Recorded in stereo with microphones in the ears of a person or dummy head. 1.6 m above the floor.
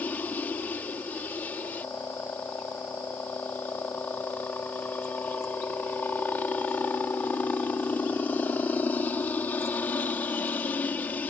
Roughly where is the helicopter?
Centre.